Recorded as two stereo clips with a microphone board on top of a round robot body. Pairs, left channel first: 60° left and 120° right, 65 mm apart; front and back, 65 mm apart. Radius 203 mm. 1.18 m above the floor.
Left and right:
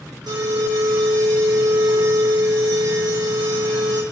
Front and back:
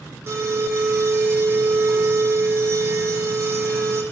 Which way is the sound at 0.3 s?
130° right.